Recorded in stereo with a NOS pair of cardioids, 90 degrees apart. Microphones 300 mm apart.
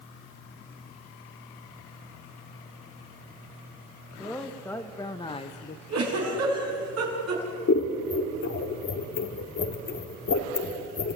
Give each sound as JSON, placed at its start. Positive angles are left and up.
{"t": 4.2, "sound": "a man speaking", "azimuth_deg": 0, "distance_m": 1.8}
{"t": 5.9, "sound": "a giggle", "azimuth_deg": -55, "distance_m": 5.5}
{"t": 7.7, "sound": "scissors", "azimuth_deg": 50, "distance_m": 2.0}